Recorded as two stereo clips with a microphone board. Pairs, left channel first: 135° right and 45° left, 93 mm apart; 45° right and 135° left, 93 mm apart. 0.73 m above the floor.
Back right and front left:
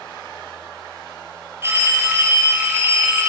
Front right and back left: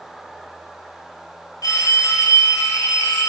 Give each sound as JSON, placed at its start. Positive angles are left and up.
{"t": 1.6, "sound": "a phone ringing", "azimuth_deg": -10, "distance_m": 0.6}